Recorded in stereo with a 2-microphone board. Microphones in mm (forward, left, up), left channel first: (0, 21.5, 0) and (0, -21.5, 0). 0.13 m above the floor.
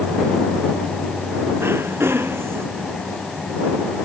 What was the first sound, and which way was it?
Throat clearing, 70° right (ahead or behind).